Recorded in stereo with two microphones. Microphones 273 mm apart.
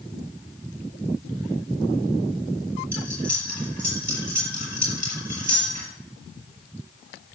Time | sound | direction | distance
2.9 | cutlery clinking | 80° right | 6.5 m